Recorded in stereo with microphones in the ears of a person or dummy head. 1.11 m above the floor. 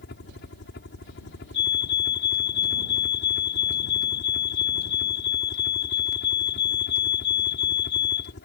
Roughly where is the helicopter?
Left.